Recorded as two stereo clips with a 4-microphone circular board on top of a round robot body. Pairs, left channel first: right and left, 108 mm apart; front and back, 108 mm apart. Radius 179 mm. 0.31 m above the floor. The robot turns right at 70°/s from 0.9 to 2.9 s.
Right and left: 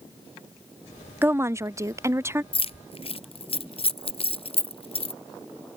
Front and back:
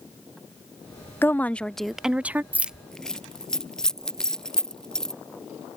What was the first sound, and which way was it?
A woman speaking, 45° left.